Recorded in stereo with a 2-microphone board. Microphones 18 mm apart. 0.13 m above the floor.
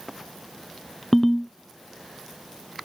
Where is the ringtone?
20° left (ahead or behind), 0.7 m.